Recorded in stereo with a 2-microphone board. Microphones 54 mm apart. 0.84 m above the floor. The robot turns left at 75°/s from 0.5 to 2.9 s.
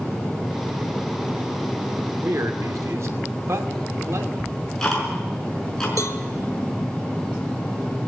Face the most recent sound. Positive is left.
turn(degrees=70)  # may be behind; listen again after turning